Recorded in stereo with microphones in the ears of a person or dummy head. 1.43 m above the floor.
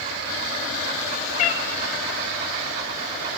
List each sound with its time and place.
1.4 s a cat meowing: 45° left (ahead or behind), 1.0 m